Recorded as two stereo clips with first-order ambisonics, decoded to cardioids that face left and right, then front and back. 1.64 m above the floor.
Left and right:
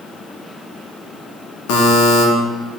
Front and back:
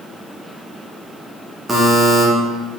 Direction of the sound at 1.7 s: 100° left.